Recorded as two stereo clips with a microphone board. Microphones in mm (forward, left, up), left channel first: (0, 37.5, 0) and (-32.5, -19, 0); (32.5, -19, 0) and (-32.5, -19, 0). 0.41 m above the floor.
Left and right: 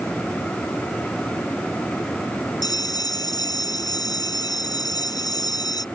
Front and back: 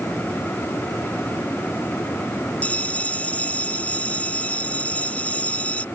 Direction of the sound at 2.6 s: 70° left.